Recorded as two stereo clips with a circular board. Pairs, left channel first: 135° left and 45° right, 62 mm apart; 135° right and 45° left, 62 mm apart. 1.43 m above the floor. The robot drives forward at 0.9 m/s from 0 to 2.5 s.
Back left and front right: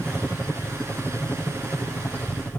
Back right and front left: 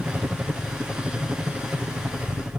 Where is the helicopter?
90° left; by 2.6 s 95° left.